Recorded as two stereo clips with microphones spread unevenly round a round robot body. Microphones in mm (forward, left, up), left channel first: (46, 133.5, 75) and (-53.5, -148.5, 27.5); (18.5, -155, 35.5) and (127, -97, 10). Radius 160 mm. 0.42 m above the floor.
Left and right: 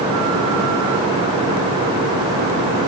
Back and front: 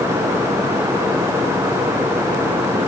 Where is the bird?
I don't hear a bird.